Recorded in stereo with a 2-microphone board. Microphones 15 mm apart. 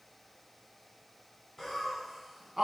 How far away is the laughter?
About 1.8 m.